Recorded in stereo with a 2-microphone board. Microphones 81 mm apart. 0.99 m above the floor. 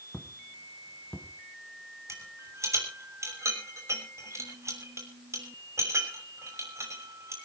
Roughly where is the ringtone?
I don't hear a ringtone.